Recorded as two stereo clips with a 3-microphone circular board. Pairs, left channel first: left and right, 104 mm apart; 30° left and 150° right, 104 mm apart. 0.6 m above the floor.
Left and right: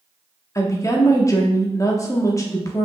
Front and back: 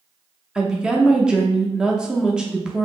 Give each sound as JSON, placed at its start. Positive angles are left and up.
{"t": 0.6, "sound": "a woman speaking", "azimuth_deg": 135, "distance_m": 0.8}